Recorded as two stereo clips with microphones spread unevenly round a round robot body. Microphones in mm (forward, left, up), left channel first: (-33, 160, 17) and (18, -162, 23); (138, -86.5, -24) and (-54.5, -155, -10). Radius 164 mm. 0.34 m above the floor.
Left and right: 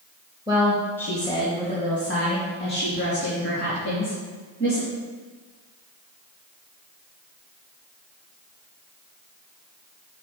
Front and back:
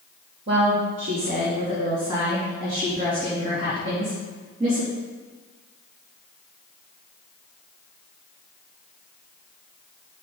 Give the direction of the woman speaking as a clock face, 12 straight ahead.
5 o'clock.